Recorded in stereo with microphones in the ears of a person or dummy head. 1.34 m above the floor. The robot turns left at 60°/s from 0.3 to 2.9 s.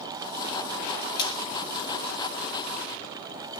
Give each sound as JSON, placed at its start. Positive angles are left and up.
{"t": 1.2, "sound": "frying", "side_deg": 30, "distance_m": 1.4}